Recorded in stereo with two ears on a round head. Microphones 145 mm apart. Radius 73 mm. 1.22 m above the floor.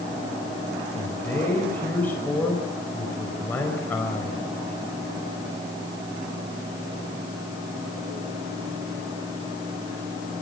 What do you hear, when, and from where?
0.9 s a man speaking: 10° left (ahead or behind), 4.5 m